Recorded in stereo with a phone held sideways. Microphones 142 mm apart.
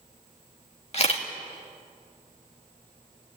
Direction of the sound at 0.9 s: 50° left (ahead or behind).